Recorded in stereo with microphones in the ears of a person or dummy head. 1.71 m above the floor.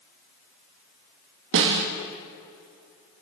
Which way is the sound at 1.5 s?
65° right (ahead or behind).